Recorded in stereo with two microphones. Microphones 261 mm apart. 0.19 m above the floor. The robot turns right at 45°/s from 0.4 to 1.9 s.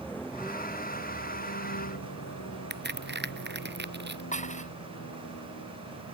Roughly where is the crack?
Right.